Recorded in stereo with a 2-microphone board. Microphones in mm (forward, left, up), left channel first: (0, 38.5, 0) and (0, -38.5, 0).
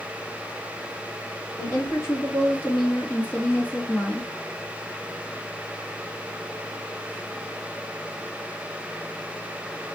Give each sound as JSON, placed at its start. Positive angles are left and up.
{"t": 1.6, "sound": "a woman speaking", "side_deg": 40, "distance_m": 4.0}